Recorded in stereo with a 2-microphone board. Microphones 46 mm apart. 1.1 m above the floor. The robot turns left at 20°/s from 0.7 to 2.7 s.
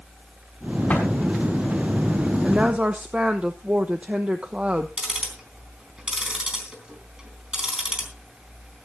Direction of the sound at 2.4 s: 25° right (ahead or behind).